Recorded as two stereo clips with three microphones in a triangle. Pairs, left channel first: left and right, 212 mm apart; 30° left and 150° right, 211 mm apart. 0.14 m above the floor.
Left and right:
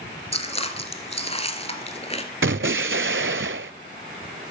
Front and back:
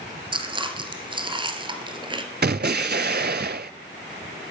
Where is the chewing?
150° left, 1.3 m.